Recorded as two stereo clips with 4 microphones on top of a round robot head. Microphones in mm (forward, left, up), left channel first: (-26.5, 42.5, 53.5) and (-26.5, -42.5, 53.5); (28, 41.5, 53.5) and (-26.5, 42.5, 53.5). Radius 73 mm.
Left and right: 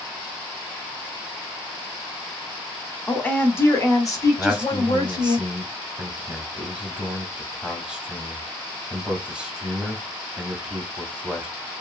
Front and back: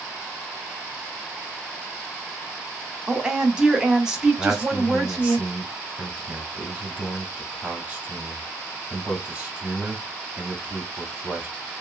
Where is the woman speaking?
140° left, 0.9 m; by 5.4 s 100° left, 1.7 m.